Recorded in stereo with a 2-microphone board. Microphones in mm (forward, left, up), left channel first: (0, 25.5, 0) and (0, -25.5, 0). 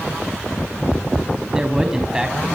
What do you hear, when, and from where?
1.5 s a man speaking: 15° right (ahead or behind), 4.5 m